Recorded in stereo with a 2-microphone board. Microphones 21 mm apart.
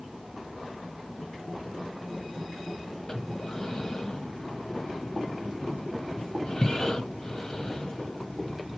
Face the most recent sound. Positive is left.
turn(degrees=35)  # may be behind; listen again after turning